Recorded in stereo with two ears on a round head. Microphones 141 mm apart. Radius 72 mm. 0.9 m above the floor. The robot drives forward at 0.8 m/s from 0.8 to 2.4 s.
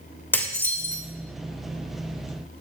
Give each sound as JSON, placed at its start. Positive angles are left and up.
{"t": 0.3, "sound": "dishes clattering", "side_deg": 15, "distance_m": 2.0}